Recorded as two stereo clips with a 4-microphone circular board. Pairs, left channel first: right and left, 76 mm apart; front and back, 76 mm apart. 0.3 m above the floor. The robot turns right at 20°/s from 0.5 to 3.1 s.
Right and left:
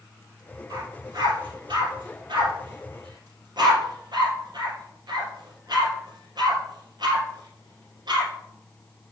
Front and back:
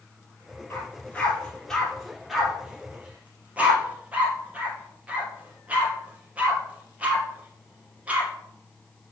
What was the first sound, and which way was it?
A dog barking, 60° left.